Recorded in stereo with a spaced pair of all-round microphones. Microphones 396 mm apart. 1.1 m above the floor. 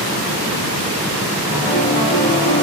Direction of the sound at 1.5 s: 40° left (ahead or behind).